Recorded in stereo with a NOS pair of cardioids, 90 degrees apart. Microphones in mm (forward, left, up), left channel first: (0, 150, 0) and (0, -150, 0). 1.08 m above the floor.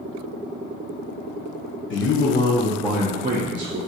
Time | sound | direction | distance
1.9 | a man speaking | 50° left | 0.7 m